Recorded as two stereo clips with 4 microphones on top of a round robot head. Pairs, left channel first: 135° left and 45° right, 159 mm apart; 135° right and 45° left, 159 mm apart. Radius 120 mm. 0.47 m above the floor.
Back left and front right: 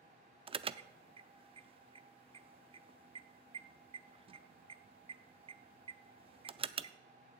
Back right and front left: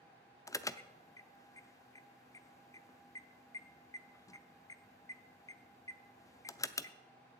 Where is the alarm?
75° right, 0.6 m.